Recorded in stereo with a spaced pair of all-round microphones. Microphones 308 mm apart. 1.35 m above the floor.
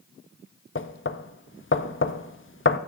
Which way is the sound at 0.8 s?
40° left (ahead or behind).